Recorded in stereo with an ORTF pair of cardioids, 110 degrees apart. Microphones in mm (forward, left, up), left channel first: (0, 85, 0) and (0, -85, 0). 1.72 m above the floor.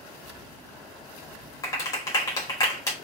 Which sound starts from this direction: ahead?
A clap, at 1.6 s.